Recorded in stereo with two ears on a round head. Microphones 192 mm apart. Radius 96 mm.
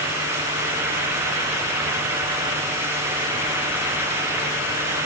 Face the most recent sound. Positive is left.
No sound to turn to.